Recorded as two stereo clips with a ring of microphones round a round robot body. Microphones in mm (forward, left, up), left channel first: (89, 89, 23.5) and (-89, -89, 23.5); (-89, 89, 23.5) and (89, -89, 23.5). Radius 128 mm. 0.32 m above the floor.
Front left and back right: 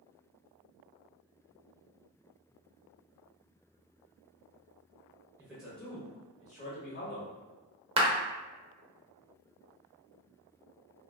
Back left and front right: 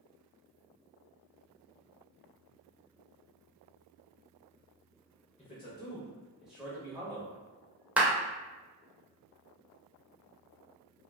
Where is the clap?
120° right, 0.6 m.